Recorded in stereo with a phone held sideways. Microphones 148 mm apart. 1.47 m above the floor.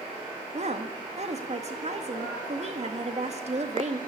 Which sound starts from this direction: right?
A woman speaking, at 0.5 s.